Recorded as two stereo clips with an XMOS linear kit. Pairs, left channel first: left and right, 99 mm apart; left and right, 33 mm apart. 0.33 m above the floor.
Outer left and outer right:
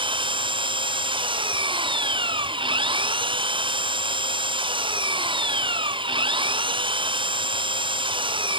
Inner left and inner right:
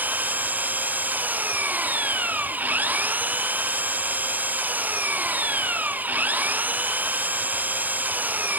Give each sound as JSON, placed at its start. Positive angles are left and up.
{"t": 0.0, "sound": "an engine running", "side_deg": -55}